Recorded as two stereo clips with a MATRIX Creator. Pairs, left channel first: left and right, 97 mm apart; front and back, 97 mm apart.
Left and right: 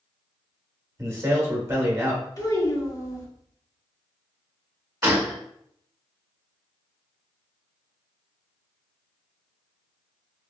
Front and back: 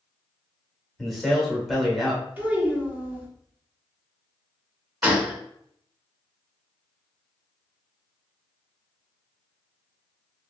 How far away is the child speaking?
About 1.0 m.